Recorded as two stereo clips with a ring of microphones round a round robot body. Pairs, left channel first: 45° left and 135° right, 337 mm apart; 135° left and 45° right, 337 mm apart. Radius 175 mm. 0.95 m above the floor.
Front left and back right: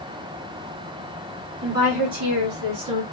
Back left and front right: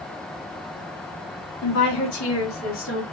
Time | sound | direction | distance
1.6 | a woman speaking | 175° left | 2.5 m